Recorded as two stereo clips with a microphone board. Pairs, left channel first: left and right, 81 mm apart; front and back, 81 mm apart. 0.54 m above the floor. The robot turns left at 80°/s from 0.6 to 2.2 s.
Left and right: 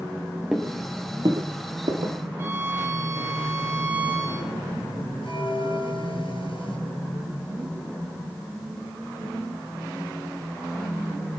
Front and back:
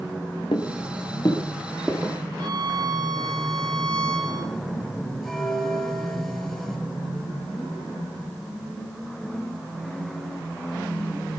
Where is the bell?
85° left, 5.5 m.